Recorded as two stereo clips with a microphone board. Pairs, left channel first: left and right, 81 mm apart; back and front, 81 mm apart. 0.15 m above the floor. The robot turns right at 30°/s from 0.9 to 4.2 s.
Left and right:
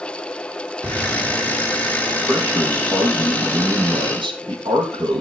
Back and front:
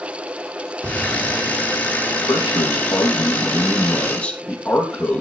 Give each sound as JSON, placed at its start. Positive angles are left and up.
{"t": 0.8, "sound": "an explosion", "azimuth_deg": -85, "distance_m": 1.1}
{"t": 2.2, "sound": "a man speaking", "azimuth_deg": -160, "distance_m": 4.5}